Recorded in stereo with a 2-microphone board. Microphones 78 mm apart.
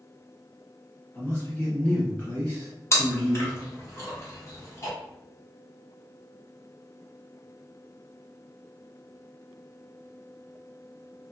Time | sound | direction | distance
1.1 | a man speaking | 20° left (ahead or behind) | 1.4 m
2.9 | chewing | 35° left (ahead or behind) | 0.8 m